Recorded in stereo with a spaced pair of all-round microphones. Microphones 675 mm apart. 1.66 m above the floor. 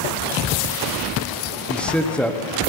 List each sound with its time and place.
1.7 s a man speaking: centre (ahead or behind), 1.2 m